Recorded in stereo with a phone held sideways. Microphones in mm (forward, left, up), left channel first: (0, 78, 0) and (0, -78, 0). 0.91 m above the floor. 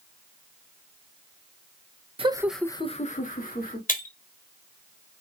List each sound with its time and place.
2.2 s laughter: 40° right (ahead or behind), 0.7 m; by 3.8 s 70° left (ahead or behind), 1.6 m
3.9 s breaking glass: 60° left (ahead or behind), 1.0 m